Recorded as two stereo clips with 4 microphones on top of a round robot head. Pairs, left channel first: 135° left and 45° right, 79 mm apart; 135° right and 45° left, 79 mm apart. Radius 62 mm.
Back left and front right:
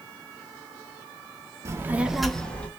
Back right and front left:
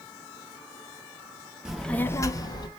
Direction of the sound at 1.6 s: 35° right.